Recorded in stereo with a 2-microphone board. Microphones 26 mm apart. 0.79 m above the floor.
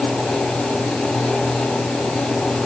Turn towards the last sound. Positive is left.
No sound to turn to.